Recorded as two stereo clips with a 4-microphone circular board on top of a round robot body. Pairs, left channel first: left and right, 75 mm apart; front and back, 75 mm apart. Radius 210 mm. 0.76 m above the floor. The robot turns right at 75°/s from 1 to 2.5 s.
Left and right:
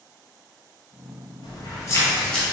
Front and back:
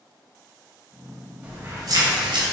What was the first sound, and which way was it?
Keys jangling, 105° left.